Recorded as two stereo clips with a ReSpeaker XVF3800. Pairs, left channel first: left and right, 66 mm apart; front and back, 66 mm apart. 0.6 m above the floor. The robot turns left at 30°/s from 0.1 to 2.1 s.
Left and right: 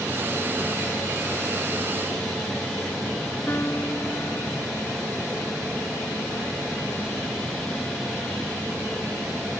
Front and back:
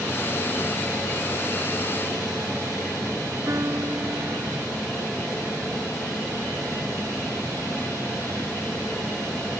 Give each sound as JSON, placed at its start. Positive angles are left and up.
{"t": 3.5, "sound": "a piano", "azimuth_deg": 140}